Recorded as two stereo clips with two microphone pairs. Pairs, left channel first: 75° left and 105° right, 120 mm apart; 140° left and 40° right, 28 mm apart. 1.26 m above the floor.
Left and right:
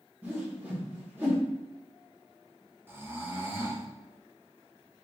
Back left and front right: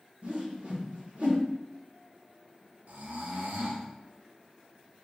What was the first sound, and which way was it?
A whoosh, 35° right.